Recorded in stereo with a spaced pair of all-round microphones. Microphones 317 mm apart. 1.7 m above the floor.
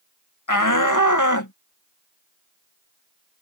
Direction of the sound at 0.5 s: 80° left.